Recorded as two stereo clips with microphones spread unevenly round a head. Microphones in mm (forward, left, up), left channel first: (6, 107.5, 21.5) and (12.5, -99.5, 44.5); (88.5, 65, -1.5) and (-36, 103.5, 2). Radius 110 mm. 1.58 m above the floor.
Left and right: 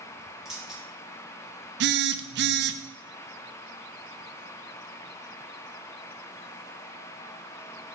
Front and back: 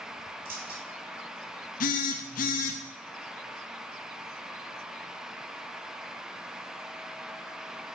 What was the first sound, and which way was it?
Keys jangling, 175° right.